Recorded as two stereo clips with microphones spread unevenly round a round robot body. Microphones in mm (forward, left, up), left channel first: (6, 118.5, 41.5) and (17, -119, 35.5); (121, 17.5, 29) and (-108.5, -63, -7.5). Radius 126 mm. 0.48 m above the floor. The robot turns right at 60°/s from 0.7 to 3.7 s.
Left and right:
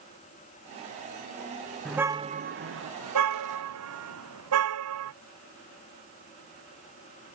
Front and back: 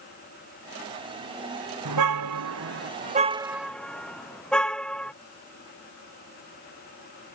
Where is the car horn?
Straight behind; by 5.1 s 65° right.